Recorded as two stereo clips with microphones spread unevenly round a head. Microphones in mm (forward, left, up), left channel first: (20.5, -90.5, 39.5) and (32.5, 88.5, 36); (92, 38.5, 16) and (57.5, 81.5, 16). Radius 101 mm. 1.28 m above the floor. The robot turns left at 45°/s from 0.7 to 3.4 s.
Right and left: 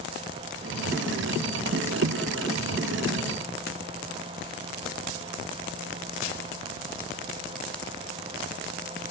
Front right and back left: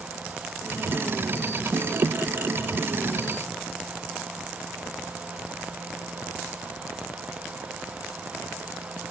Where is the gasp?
I don't hear a gasp.